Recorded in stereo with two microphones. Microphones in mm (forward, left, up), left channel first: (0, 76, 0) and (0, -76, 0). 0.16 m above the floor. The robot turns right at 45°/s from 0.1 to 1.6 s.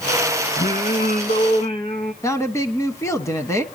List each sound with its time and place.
0.6 s singing: 95° left, 1.2 m; by 2.1 s 145° left, 1.2 m
2.2 s a woman speaking: 20° left (ahead or behind), 1.0 m